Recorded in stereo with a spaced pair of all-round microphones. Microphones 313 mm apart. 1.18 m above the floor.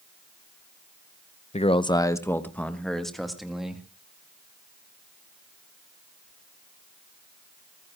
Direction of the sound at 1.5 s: 25° left (ahead or behind).